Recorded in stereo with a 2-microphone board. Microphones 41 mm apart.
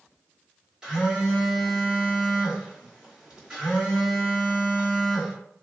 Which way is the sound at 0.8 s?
15° right (ahead or behind).